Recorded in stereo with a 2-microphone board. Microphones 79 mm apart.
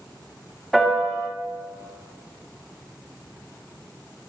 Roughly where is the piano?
Centre.